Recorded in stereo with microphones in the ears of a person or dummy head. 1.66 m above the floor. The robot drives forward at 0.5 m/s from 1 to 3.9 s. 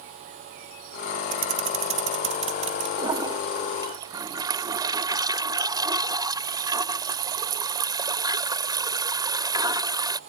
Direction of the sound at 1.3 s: 45° right (ahead or behind).